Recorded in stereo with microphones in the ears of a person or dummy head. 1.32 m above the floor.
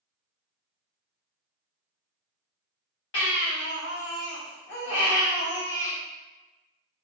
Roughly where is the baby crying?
Left.